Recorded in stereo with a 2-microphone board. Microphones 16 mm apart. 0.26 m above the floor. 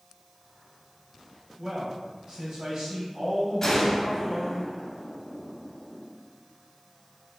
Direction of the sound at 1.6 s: 30° right (ahead or behind).